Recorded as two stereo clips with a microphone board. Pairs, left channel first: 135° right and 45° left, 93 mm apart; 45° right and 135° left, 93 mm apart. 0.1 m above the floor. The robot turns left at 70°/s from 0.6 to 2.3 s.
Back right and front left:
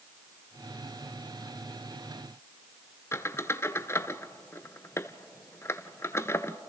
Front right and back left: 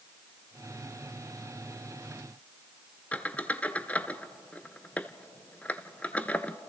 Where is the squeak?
105° right, 0.6 m.